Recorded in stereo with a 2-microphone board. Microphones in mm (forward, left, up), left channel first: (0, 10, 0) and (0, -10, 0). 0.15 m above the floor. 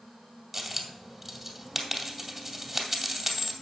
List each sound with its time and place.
0.5 s a dropped coin: 20° right (ahead or behind), 2 m